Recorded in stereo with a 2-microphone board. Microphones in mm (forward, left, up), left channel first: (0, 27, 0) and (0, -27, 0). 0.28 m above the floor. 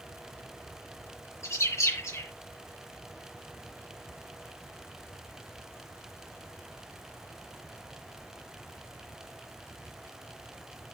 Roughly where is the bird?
Left.